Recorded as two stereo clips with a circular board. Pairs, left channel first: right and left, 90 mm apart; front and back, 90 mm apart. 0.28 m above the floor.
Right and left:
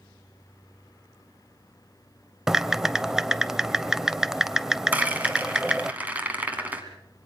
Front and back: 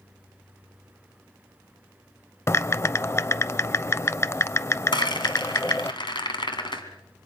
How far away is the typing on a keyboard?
About 0.6 m.